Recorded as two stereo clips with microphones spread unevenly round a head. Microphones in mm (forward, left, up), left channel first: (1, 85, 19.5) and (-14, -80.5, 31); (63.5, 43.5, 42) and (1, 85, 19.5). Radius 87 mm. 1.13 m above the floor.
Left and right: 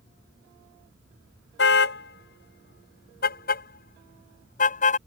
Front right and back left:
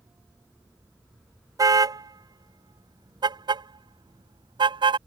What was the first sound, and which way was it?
A car horn, 105° left.